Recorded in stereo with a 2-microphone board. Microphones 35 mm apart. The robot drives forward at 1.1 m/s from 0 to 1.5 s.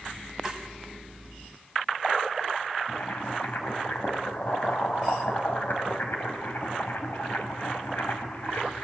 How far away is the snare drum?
About 2 m.